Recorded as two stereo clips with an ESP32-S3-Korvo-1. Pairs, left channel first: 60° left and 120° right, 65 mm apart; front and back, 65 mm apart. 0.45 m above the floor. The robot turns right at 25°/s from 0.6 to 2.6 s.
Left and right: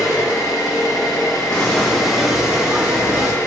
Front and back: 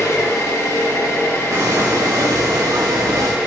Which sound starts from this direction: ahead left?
An engine running, at 0.0 s.